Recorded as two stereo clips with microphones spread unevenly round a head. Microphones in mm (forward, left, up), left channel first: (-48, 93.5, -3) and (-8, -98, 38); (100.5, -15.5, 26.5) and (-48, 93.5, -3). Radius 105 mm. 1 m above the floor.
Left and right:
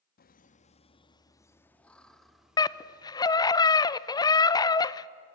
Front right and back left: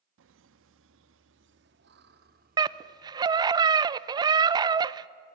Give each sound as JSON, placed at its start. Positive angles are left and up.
{"t": 0.2, "sound": "laughter", "azimuth_deg": 140, "distance_m": 1.3}
{"t": 2.6, "sound": "a scream", "azimuth_deg": 120, "distance_m": 0.7}